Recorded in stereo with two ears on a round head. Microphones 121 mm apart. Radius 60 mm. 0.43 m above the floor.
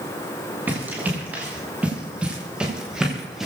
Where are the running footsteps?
15° right (ahead or behind), 7.5 m; by 3.5 s 5° right (ahead or behind), 5.5 m.